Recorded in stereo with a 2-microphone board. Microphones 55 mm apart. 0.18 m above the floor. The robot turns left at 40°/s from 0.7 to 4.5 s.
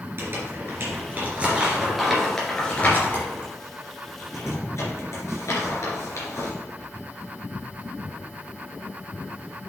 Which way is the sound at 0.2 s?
45° right (ahead or behind).